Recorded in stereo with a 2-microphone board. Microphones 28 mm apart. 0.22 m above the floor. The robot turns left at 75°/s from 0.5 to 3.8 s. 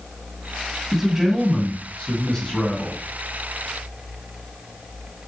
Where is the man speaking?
125° right, 1.5 m; by 3.0 s 80° left, 1.5 m.